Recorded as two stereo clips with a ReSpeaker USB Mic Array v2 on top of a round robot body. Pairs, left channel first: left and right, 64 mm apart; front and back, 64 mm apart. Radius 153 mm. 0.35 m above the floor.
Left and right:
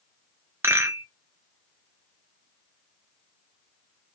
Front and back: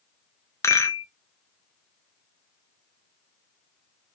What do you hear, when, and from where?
0.6 s a rattle: 40° right, 1.3 m